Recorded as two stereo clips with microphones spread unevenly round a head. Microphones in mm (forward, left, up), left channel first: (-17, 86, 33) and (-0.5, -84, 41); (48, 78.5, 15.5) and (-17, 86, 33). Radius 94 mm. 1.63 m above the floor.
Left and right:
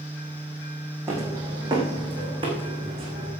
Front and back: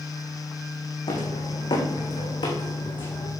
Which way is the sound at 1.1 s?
10° right.